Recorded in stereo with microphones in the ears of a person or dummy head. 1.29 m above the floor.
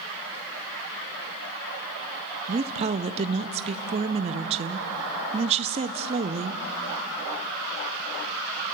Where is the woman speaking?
35° right (ahead or behind), 0.6 m.